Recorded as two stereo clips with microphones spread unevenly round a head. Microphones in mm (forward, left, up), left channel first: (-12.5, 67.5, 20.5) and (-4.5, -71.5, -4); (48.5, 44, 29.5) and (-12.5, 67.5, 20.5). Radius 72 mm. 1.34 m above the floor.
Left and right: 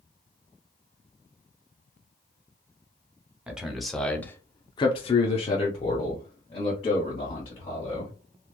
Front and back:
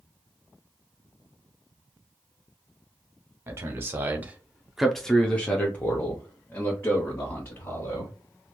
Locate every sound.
3.5 s a man speaking: 165° right, 0.8 m; by 8.1 s 35° left, 1.9 m